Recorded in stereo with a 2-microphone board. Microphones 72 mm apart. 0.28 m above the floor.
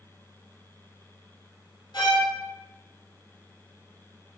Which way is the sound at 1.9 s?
80° left.